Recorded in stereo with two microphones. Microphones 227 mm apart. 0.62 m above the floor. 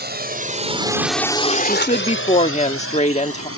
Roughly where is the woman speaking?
Left.